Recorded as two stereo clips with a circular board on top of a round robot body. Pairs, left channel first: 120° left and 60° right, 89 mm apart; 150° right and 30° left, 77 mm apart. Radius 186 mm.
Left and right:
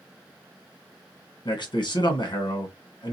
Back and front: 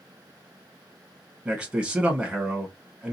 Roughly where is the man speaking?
Left.